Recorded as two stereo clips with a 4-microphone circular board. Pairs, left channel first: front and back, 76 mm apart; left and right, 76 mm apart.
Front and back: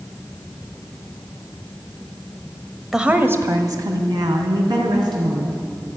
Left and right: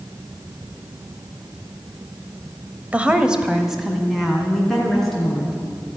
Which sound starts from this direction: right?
A woman speaking, at 2.9 s.